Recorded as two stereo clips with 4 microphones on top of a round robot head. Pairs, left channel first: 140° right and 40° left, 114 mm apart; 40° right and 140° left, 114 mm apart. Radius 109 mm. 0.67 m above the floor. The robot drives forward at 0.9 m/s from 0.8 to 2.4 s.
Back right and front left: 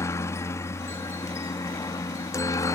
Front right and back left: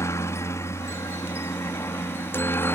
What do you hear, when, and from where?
0.0 s a helicopter: 90° right; by 2.8 s 95° right